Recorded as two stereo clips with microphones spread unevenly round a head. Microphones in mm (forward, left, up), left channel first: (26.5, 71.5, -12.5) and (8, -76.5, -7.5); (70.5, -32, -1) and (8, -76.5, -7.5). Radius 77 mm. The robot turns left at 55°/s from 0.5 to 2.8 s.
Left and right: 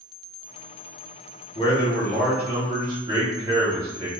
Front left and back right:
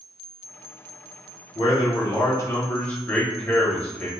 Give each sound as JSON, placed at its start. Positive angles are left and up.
{"t": 1.6, "sound": "a man speaking", "azimuth_deg": 45, "distance_m": 1.5}